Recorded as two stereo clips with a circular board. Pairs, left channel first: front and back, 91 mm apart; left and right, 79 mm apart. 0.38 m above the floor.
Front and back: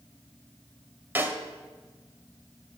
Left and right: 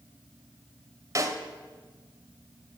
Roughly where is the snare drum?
Behind right.